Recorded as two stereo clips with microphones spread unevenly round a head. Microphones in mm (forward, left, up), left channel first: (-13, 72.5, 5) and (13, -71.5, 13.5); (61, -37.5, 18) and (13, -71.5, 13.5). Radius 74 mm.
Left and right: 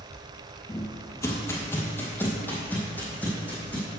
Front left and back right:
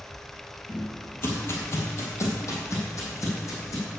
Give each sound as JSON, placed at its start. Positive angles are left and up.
{"t": 0.7, "sound": "footsteps", "azimuth_deg": 45, "distance_m": 1.5}